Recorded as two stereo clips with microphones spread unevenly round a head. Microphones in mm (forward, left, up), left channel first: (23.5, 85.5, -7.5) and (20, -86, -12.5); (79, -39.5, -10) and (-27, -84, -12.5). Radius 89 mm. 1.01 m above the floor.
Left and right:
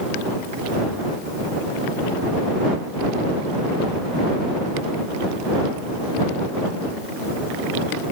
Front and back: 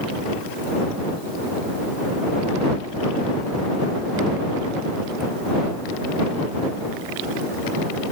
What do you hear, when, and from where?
Only background noise.